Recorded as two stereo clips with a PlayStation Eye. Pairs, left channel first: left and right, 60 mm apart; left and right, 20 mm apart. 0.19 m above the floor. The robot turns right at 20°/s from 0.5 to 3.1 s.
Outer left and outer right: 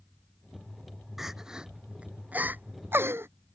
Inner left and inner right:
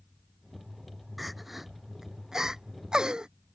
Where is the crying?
5° right (ahead or behind); by 3.3 s 45° right (ahead or behind).